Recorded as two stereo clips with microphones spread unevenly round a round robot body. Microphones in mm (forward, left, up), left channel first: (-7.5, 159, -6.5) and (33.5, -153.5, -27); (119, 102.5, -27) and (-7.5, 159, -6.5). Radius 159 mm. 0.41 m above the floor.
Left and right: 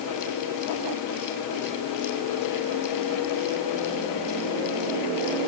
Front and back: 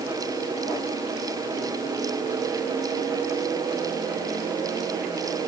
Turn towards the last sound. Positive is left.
No sound to turn to.